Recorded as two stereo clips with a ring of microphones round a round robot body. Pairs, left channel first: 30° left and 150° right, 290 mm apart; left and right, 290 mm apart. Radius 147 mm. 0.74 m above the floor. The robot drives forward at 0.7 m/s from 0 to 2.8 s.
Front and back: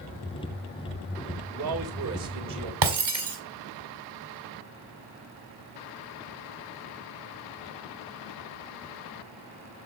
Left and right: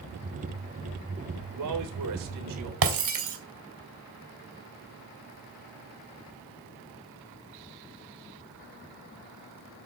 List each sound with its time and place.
1.5 s a man speaking: 110° right, 3.5 m; by 2.7 s 125° right, 4 m
2.8 s breaking glass: 135° right, 2.5 m